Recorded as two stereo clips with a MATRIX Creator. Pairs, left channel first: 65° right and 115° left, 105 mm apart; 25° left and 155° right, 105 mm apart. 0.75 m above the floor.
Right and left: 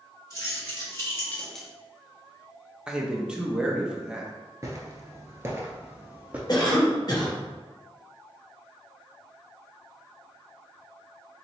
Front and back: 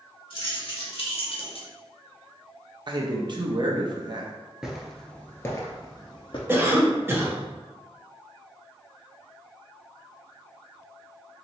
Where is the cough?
95° right, 0.8 m.